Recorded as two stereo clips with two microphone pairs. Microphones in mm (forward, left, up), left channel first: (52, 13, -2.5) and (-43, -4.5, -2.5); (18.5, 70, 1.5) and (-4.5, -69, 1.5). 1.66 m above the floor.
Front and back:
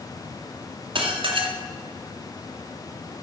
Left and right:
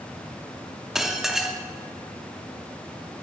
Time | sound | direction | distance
0.9 | dishes clattering | 175° left | 2.0 m